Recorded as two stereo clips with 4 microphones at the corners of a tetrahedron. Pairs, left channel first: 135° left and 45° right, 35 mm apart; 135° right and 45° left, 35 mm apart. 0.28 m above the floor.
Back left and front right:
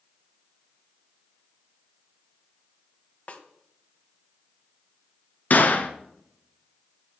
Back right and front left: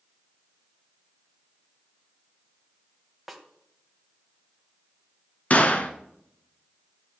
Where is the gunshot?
175° left, 1.6 m.